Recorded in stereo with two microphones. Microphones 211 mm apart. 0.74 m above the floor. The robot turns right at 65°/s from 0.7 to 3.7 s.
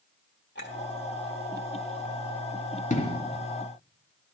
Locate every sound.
0.6 s a clink: 55° left (ahead or behind), 1.3 m; by 0.8 s 60° left (ahead or behind), 1.3 m
2.9 s an explosion: 40° left (ahead or behind), 1.1 m; by 3.2 s 20° left (ahead or behind), 1.1 m